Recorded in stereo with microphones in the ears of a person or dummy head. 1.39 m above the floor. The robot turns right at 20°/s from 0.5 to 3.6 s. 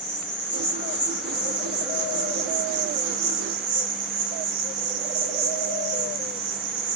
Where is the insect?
145° right, 2 m; by 7.0 s 80° right, 2 m.